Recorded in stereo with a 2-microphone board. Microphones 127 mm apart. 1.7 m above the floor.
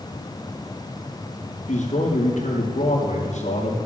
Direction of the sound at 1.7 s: 70° left (ahead or behind).